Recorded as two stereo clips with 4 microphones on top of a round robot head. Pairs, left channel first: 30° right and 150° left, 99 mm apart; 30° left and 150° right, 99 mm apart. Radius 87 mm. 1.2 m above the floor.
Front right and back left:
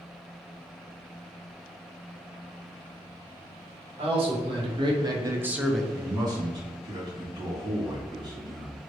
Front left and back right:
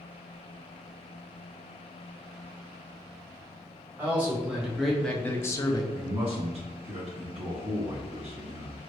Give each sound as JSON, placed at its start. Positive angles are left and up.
{"t": 4.0, "sound": "a man speaking", "azimuth_deg": 140, "distance_m": 1.3}
{"t": 5.9, "sound": "a man speaking", "azimuth_deg": -160, "distance_m": 1.5}